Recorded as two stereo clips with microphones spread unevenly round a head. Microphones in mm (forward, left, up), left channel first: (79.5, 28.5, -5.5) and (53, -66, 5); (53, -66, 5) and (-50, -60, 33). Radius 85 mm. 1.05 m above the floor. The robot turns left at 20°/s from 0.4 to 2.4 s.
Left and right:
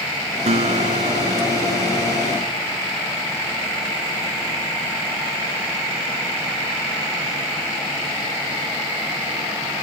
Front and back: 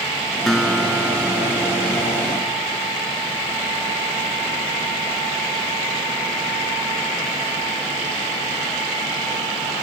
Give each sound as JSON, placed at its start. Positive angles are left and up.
{"t": 0.5, "sound": "a guitar", "azimuth_deg": -90}